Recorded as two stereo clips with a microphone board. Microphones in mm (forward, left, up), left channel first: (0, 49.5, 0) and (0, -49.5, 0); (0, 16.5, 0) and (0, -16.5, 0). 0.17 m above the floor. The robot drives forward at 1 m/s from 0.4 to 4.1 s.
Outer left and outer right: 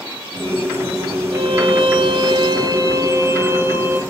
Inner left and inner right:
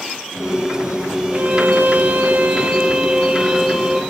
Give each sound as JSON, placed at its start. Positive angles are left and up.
{"t": 1.3, "sound": "a violin", "side_deg": -55, "distance_m": 1.1}